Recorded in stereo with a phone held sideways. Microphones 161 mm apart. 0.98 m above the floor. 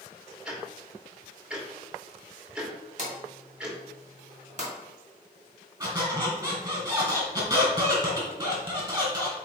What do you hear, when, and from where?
0.5 s ticking: 5° right (ahead or behind), 1.6 m
3.0 s a drawer: 50° right (ahead or behind), 2.5 m
5.8 s a squeak: 25° right (ahead or behind), 2.5 m